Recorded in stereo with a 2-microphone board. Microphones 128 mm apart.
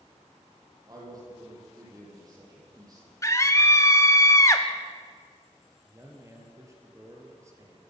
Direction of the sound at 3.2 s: 25° left (ahead or behind).